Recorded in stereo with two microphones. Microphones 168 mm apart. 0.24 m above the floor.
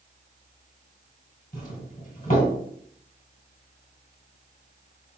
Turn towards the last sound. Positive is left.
turn(degrees=50)  # may be behind; listen again after turning